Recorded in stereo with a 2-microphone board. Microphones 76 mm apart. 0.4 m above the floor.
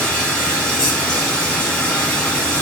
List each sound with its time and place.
0.0 s running water: 15° left (ahead or behind), 3 m